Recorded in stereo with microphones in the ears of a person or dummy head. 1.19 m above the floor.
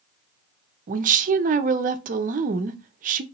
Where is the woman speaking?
35° right (ahead or behind), 0.5 m.